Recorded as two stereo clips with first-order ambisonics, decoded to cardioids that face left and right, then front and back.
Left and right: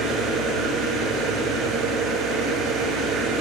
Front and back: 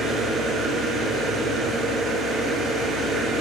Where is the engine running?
125° right, 8.5 m.